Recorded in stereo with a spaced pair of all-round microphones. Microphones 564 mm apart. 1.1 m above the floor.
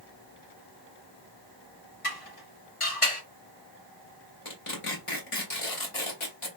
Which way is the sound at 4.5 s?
60° left (ahead or behind).